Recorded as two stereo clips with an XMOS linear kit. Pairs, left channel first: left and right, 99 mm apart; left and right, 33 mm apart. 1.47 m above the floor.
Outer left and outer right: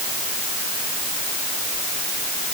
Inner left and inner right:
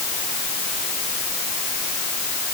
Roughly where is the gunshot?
No gunshot in this recording.